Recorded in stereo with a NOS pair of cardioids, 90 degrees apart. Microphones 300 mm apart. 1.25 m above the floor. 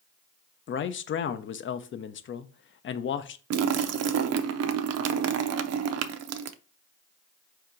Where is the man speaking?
40° left, 0.6 m.